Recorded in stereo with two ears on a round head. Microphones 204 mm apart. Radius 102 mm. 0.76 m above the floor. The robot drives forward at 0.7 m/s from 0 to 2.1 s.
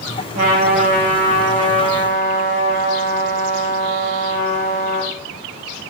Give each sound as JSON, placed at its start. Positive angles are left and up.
{"t": 0.3, "sound": "a trumpet", "side_deg": -40, "distance_m": 3.5}